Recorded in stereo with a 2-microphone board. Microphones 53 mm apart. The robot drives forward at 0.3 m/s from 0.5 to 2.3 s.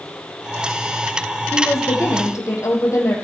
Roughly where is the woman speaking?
Left.